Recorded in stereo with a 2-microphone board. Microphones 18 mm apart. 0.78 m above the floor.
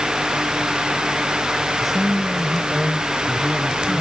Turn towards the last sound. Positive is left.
turn(degrees=-5)  # may be behind; listen again after turning